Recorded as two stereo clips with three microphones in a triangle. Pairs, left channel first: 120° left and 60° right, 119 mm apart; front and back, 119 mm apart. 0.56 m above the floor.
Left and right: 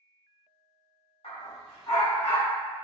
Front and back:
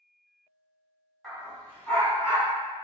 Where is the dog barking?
90° left, 1.7 m; by 2.5 s 55° left, 2 m.